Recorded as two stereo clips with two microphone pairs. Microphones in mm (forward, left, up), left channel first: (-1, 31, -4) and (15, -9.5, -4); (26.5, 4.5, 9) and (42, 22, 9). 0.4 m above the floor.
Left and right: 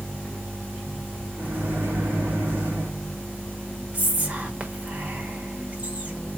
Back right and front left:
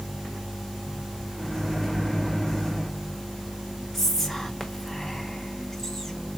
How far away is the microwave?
About 2 m.